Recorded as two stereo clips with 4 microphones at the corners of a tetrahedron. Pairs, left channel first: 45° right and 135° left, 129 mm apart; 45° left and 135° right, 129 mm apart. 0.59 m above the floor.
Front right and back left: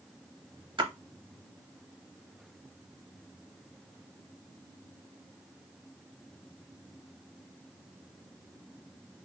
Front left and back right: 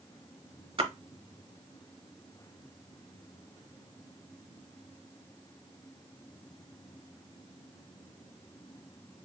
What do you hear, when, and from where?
0.8 s a splash: 175° right, 0.7 m